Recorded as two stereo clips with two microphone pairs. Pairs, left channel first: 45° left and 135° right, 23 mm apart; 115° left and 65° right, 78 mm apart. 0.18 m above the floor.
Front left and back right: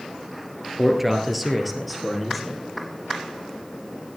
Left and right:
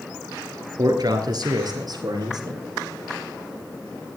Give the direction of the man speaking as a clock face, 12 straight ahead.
2 o'clock.